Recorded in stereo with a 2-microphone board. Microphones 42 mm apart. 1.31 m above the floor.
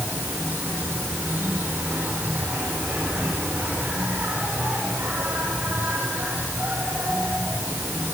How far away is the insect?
About 9 m.